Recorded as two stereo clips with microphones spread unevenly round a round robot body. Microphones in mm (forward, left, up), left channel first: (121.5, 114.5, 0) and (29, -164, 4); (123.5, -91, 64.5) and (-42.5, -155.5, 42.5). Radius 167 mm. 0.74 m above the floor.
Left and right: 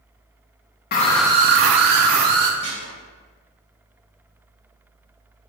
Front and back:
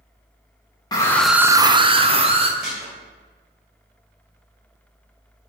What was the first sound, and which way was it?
A scream, 85° left.